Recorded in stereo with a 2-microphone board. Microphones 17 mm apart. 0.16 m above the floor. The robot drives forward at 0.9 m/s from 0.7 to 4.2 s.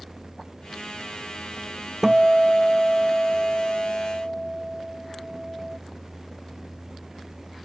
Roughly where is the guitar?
Right.